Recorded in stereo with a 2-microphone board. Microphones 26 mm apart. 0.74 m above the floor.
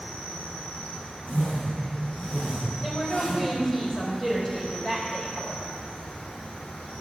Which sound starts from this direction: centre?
A woman speaking, at 2.8 s.